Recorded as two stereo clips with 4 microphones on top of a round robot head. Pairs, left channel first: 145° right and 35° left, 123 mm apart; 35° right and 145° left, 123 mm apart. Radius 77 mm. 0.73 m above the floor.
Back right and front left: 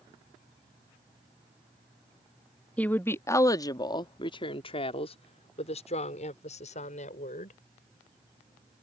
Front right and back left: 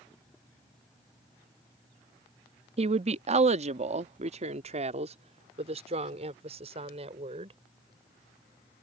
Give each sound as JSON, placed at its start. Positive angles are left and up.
{"t": 2.8, "sound": "a woman speaking", "azimuth_deg": 140}